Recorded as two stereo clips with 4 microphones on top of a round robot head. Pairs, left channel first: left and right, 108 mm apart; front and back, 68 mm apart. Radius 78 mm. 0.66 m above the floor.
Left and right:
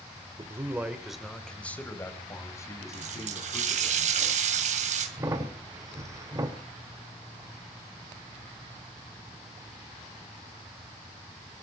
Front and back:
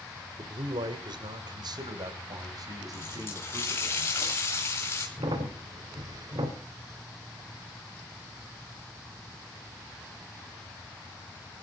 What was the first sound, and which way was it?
A man speaking, 150° right.